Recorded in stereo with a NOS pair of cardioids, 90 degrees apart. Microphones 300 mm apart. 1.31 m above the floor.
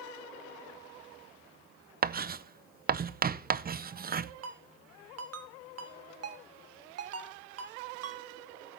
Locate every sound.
2.0 s writing: 30° right, 0.6 m
4.4 s a ringtone: 55° right, 1.4 m